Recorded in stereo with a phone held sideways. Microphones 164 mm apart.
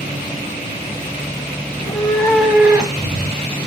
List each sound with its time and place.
1.7 s a cat meowing: 30° left (ahead or behind), 1.3 m; by 3.6 s 40° right (ahead or behind), 1.7 m